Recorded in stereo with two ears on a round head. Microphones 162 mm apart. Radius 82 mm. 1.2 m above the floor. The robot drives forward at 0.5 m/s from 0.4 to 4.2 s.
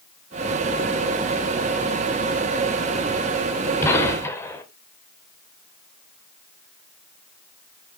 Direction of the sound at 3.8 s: 15° left (ahead or behind).